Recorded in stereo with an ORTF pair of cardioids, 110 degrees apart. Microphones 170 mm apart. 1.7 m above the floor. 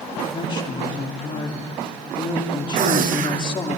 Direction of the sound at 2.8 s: 55° right.